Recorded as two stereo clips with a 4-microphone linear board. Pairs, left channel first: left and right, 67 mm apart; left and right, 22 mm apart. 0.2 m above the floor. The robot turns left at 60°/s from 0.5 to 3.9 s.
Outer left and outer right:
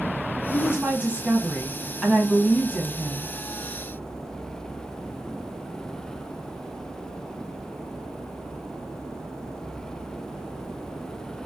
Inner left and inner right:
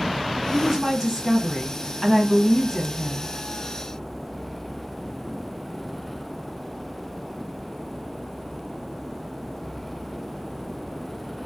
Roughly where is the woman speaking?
Right.